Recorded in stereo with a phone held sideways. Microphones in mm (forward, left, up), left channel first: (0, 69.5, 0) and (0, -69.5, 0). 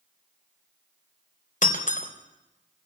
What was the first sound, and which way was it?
Breaking glass, 70° left (ahead or behind).